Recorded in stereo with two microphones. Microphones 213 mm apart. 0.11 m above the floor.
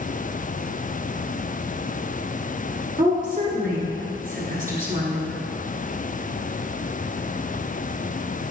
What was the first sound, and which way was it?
A woman speaking, 40° right (ahead or behind).